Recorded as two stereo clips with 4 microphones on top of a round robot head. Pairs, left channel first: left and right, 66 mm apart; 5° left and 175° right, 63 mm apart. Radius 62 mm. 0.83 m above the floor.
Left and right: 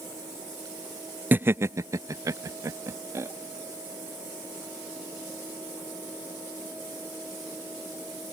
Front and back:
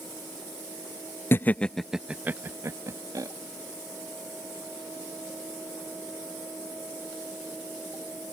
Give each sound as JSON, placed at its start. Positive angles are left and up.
{"t": 1.3, "sound": "laughter", "azimuth_deg": -35}